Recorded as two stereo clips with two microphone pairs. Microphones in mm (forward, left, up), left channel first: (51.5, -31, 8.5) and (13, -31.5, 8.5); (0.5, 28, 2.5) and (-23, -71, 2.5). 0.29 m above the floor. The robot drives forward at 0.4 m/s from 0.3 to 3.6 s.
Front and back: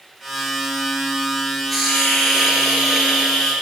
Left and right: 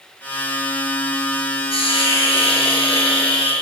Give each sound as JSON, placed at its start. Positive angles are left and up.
{"t": 1.7, "sound": "a hiss", "azimuth_deg": 90, "distance_m": 6.5}